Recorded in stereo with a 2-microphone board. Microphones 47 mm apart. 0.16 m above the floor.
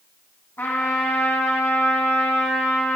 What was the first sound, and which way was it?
A trumpet, 45° left (ahead or behind).